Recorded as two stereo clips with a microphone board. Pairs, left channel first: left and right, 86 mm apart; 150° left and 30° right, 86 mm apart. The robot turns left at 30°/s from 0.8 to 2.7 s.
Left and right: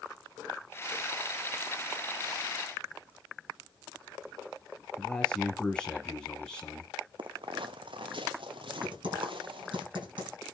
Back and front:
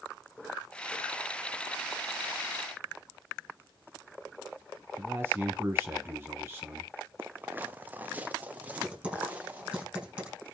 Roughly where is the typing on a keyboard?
Right.